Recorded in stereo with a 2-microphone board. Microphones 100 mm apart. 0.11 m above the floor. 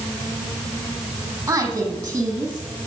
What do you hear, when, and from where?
1.5 s a woman speaking: 30° right (ahead or behind), 4 m